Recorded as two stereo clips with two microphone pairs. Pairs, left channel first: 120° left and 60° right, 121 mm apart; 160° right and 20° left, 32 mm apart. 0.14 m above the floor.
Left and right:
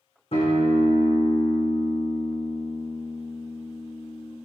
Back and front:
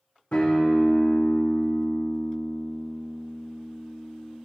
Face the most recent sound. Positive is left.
turn(degrees=150)